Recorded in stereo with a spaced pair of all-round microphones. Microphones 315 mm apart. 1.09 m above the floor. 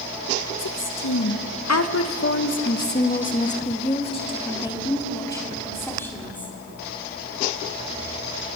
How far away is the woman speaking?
About 1.0 m.